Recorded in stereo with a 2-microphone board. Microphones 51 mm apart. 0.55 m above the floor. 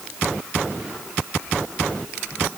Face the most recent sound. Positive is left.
No sound to turn to.